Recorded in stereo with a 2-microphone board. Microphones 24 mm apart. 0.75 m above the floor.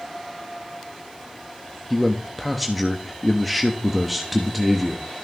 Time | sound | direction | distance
1.9 | a man speaking | centre (ahead or behind) | 1.2 m